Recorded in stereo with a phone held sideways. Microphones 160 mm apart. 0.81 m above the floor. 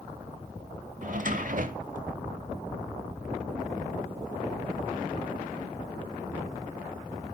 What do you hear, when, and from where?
1.0 s a drawer: 60° right (ahead or behind), 0.9 m